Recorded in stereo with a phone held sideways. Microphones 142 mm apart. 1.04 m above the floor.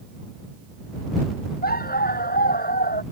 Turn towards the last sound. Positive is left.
turn(degrees=85)